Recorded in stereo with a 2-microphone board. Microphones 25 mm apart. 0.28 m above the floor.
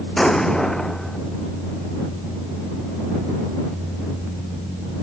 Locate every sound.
0.2 s an explosion: 15° left (ahead or behind)